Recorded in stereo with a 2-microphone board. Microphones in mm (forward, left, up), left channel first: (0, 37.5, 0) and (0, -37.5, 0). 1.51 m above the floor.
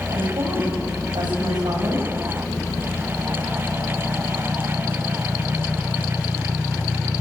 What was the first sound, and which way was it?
A woman speaking, 80° right.